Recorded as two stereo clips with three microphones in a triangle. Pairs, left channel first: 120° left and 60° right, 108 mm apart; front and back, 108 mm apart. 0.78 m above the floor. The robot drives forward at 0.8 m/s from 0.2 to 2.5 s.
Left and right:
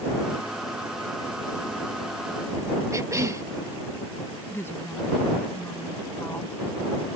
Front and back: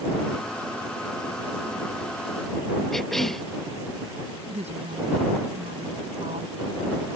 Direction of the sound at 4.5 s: 170° right.